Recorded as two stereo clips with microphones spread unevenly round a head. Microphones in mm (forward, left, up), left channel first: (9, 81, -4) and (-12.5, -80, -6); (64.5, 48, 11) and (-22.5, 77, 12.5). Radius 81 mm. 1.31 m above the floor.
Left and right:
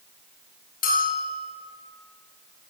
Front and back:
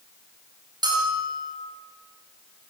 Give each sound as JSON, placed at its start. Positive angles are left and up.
{"t": 0.8, "sound": "a bell", "azimuth_deg": 120, "distance_m": 7.0}